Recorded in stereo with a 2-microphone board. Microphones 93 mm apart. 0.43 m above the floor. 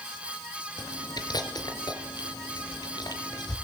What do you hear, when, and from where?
0.8 s chewing: 50° left (ahead or behind), 4 m